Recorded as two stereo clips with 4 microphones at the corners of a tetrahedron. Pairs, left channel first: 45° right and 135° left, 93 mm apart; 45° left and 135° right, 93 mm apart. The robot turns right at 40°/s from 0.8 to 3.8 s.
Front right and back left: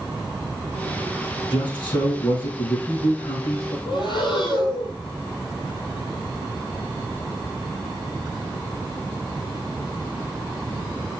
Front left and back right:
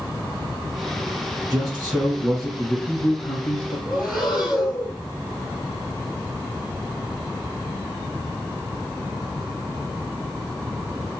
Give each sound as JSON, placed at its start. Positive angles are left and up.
{"t": 1.4, "sound": "a man speaking", "azimuth_deg": -85, "distance_m": 3.5}
{"t": 3.9, "sound": "breathing", "azimuth_deg": -45, "distance_m": 1.3}